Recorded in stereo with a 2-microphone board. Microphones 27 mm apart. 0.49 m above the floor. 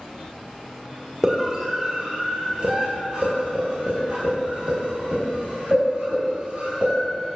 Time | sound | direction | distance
1.2 | a scream | 25° right (ahead or behind) | 1.5 m